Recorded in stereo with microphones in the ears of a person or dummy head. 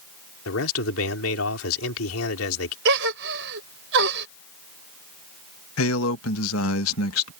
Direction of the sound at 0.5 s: 85° left.